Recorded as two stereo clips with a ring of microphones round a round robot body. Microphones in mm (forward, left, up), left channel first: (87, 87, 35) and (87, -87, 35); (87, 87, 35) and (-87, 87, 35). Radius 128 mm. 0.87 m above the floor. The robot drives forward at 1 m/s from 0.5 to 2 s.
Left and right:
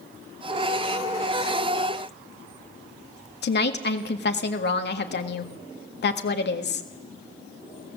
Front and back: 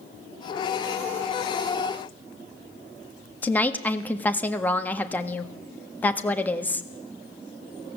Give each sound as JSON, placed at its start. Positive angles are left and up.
{"t": 3.4, "sound": "a woman speaking", "azimuth_deg": 80, "distance_m": 1.7}